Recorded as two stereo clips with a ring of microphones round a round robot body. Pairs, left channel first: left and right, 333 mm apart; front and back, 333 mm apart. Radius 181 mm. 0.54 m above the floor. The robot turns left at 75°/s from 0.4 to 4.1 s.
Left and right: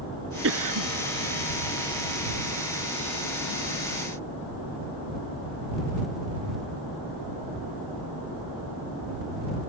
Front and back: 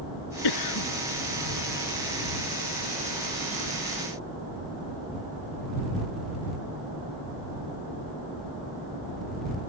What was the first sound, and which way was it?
A cough, 30° right.